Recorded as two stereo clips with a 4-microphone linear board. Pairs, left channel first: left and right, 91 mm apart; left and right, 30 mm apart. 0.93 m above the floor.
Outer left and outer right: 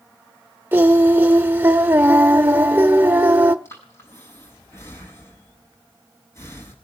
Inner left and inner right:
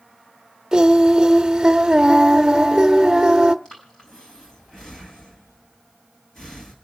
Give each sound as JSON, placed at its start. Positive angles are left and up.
{"t": 0.7, "sound": "singing", "side_deg": -25, "distance_m": 1.0}
{"t": 3.6, "sound": "breathing", "side_deg": 30, "distance_m": 7.0}